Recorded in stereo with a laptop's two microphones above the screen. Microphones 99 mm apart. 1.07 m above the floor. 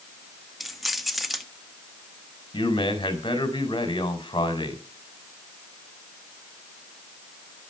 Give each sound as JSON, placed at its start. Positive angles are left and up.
{"t": 0.6, "sound": "keys jangling", "side_deg": 0, "distance_m": 1.5}
{"t": 2.5, "sound": "a man speaking", "side_deg": 50, "distance_m": 4.5}